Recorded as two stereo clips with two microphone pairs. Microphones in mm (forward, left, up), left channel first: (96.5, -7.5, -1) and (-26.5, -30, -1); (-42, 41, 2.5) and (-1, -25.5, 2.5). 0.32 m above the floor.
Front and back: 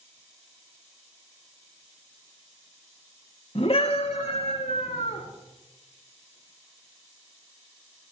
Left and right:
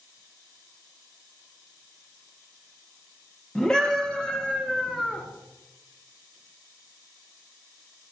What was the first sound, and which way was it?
A scream, 40° left.